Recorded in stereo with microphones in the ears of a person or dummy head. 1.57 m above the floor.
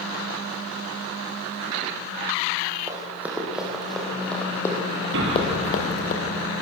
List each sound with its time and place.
2.9 s running footsteps: 10° right (ahead or behind), 5 m; by 6.1 s 45° left (ahead or behind), 3.5 m
5.1 s an explosion: 60° right (ahead or behind), 7 m